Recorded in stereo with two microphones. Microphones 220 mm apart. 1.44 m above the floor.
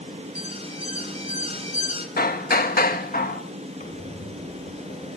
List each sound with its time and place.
0.3 s an alarm: 30° right (ahead or behind), 3 m
2.2 s hammering: 40° left (ahead or behind), 1.6 m
3.8 s a squeak: 35° left (ahead or behind), 3 m